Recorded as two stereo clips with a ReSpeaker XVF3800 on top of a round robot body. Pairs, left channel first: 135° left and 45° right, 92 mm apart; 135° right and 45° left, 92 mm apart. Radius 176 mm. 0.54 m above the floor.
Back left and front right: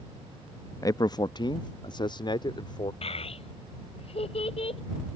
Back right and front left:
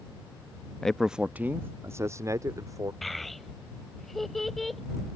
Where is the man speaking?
145° left; by 2.9 s 100° left.